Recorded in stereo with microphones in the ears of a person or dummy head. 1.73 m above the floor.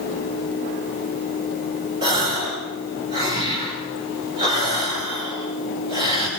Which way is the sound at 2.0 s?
20° right (ahead or behind).